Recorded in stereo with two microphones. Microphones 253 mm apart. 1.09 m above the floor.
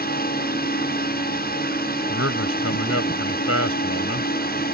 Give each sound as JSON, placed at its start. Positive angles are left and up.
{"t": 0.0, "sound": "a drone", "side_deg": 40}
{"t": 2.1, "sound": "a man speaking", "side_deg": 65}